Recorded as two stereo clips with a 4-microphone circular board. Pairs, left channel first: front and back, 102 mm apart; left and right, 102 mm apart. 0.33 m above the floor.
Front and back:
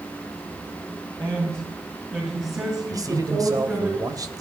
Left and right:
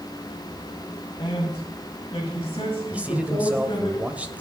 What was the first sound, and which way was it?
A man speaking, 125° left.